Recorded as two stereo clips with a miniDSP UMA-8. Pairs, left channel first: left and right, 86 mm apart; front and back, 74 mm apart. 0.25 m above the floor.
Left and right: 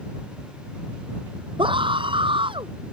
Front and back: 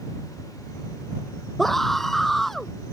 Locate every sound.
1.6 s a scream: 85° right